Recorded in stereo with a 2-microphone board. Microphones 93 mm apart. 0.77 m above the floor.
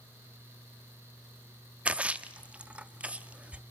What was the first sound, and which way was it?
A splash, 15° right (ahead or behind).